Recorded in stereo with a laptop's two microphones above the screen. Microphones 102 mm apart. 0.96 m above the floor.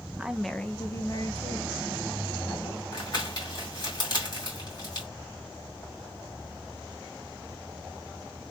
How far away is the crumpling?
About 2 m.